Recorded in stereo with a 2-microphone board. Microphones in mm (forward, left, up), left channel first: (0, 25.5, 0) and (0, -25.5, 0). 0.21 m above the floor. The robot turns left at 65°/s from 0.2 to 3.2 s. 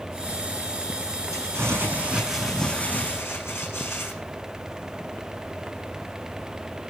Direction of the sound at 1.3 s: 110° right.